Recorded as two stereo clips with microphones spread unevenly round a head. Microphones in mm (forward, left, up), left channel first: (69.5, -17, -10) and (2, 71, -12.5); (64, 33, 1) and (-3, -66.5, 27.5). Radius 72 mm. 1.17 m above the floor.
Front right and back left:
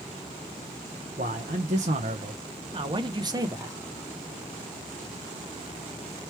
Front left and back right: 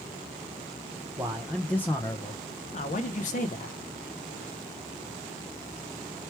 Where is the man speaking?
155° left, 0.7 m; by 3.8 s 65° left, 1.1 m.